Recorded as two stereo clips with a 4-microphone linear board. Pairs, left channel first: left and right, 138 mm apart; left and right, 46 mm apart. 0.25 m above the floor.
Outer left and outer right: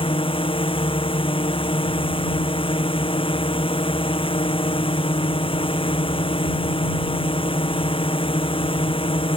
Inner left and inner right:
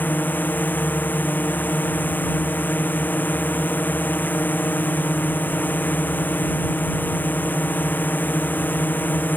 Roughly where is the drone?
Left.